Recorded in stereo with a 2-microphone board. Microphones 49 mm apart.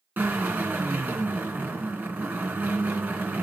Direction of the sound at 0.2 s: 40° right (ahead or behind).